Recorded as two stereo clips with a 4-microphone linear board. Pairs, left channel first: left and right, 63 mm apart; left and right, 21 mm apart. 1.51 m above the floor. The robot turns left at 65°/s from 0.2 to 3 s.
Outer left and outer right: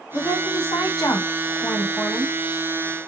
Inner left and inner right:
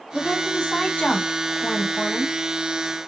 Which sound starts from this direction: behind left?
A woman speaking, at 0.1 s.